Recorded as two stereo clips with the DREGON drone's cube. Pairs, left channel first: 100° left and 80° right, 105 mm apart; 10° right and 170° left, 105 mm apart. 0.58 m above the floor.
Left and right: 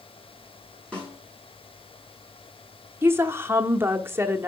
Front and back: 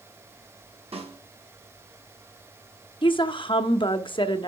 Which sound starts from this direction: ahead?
A woman speaking, at 3.0 s.